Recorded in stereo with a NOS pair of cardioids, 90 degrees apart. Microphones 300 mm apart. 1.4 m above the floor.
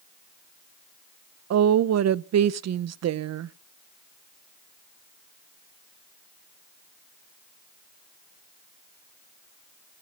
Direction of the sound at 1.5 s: 55° right.